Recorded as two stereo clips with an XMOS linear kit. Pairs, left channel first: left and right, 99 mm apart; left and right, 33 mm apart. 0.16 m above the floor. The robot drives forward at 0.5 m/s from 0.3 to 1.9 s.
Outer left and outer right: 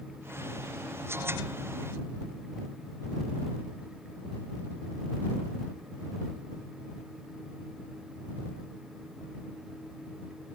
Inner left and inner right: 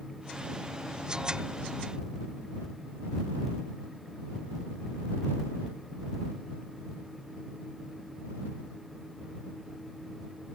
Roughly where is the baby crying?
I don't hear a baby crying.